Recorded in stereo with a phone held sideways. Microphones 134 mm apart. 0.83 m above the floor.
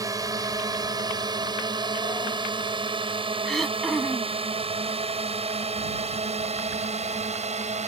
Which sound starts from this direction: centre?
Throat clearing, at 3.5 s.